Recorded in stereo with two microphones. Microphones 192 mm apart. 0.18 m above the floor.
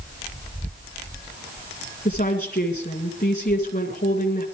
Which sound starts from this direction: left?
A woman speaking, at 2.0 s.